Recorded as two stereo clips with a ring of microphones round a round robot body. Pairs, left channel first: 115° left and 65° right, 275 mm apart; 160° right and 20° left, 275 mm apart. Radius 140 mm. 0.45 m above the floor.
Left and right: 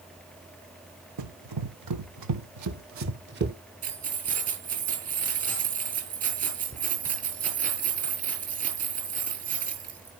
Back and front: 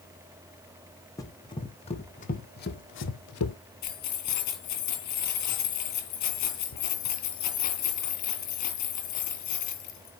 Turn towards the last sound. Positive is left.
turn(degrees=-130)